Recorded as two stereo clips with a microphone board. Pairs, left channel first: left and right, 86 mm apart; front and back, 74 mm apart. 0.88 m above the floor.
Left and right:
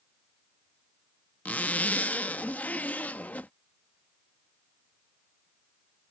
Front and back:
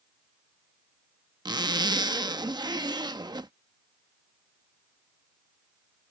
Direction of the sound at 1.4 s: 160° left.